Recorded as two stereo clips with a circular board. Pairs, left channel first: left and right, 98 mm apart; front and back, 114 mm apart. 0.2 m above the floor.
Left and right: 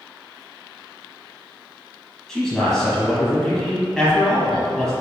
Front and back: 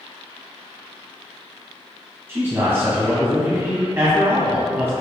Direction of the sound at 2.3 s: 170° left.